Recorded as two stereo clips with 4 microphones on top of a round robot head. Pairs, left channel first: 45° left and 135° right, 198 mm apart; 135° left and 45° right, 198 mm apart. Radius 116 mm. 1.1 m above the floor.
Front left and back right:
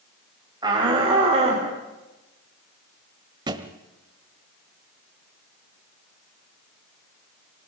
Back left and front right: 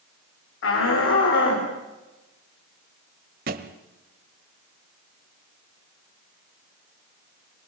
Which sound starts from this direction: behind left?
A shout, at 0.6 s.